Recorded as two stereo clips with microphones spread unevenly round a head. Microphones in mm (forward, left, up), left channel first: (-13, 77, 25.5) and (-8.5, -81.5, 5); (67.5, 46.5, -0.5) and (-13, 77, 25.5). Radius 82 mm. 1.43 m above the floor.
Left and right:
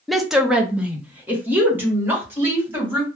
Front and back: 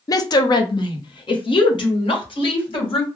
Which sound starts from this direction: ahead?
A woman speaking, at 0.1 s.